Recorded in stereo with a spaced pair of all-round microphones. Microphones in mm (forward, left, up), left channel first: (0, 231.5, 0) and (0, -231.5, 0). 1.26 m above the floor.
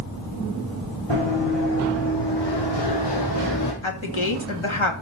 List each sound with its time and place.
1.1 s running footsteps: 70° left (ahead or behind), 4.5 m; by 3.7 s 40° left (ahead or behind), 3.5 m
3.8 s a woman speaking: 85° left, 2.5 m